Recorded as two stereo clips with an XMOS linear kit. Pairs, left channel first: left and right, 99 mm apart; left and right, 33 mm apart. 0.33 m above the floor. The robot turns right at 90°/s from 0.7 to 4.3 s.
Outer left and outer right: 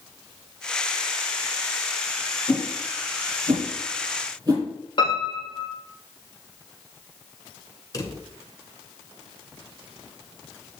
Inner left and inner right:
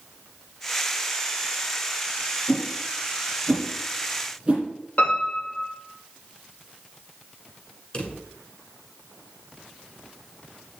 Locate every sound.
2.5 s a whoosh: 20° left (ahead or behind), 5.5 m; by 4.7 s 35° right (ahead or behind), 5.5 m
5.0 s a piano: 50° left (ahead or behind), 4 m
7.9 s a drawer: 35° left (ahead or behind), 1.7 m